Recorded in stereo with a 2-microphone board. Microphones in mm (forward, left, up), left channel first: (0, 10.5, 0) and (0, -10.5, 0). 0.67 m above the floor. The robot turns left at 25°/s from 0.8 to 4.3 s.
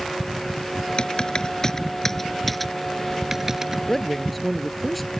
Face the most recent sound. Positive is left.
turn(degrees=0)  # may be behind; listen again after turning